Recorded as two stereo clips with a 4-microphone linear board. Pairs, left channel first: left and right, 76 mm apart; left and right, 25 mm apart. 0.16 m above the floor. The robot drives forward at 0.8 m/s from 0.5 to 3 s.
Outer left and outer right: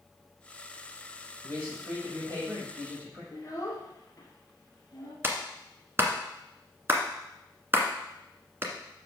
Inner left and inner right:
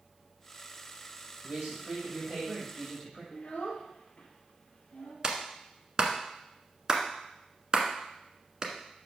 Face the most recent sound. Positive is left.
turn(degrees=-30)  # may be behind; listen again after turning